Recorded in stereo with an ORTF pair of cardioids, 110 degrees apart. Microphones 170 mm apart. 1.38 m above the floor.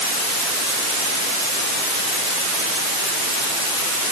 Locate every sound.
Only background noise.